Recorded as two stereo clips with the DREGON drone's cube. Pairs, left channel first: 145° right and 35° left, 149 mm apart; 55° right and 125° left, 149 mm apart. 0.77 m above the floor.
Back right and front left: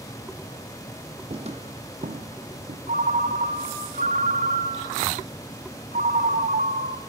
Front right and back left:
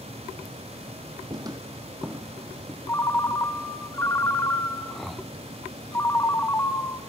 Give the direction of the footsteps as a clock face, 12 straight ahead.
10 o'clock.